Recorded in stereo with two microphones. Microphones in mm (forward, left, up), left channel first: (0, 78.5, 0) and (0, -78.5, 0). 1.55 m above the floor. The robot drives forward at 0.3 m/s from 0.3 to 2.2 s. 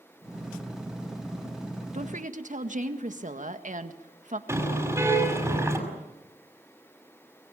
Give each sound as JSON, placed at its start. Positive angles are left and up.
{"t": 1.9, "sound": "a woman speaking", "side_deg": -55, "distance_m": 1.8}
{"t": 4.5, "sound": "a car horn", "side_deg": -15, "distance_m": 6.0}